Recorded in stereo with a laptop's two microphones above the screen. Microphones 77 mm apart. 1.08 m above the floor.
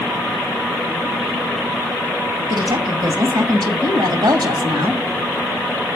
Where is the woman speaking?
75° right (ahead or behind), 1.7 m.